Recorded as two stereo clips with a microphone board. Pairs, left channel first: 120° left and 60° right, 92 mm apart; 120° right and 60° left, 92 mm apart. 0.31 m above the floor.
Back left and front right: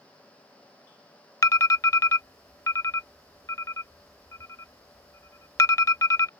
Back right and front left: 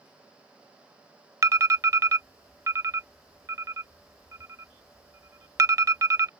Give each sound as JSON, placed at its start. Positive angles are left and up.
{"t": 1.4, "sound": "an alarm", "azimuth_deg": 90}